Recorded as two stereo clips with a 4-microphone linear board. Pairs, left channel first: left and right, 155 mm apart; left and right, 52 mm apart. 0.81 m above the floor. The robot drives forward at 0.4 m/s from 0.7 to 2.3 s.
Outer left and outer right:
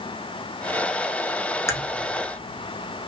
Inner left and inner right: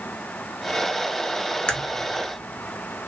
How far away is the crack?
About 0.8 m.